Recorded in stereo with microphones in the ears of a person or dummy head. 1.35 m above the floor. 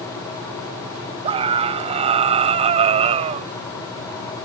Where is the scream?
30° right (ahead or behind); by 3.5 s 35° right (ahead or behind).